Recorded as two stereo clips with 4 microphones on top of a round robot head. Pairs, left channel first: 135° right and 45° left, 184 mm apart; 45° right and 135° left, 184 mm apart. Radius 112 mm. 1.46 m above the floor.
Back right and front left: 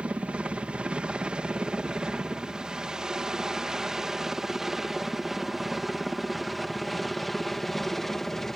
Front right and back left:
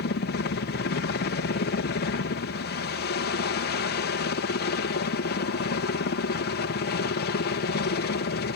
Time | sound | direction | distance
0.0 | a helicopter | 40° right | ?